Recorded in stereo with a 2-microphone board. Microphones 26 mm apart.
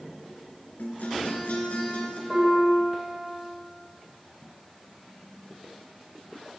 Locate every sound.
0.8 s a guitar: 75° left (ahead or behind), 5 m
2.3 s a piano: 10° right (ahead or behind), 7 m